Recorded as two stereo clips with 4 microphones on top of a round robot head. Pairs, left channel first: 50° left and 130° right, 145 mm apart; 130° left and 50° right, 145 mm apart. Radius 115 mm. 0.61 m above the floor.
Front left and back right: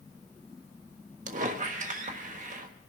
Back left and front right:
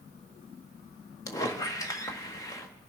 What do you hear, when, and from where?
1.3 s a squeak: 165° right, 1.4 m